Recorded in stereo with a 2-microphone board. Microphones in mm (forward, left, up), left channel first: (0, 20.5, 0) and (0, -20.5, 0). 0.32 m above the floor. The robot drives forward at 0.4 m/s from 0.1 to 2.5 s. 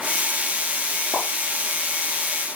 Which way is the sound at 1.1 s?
20° left (ahead or behind).